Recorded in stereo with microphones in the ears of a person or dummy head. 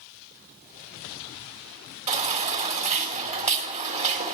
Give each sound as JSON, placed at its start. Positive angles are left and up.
{"t": 2.1, "sound": "a baby crying", "side_deg": -40, "distance_m": 2.5}